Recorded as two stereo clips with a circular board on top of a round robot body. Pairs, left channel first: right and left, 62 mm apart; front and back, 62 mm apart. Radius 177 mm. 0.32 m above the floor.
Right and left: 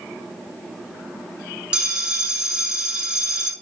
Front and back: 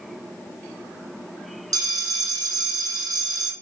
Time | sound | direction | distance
1.7 | a bell | 165° left | 0.6 m